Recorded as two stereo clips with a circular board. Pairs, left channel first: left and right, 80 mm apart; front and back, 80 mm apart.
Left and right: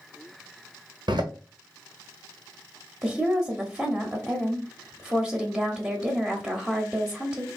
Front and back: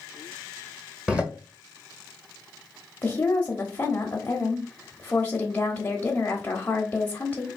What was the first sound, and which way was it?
A door slam, 105° right.